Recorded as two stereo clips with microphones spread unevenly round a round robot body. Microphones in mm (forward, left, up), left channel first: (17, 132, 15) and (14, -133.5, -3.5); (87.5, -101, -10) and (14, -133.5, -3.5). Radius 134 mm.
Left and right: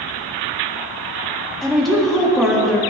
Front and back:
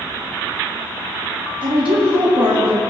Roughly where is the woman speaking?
Behind.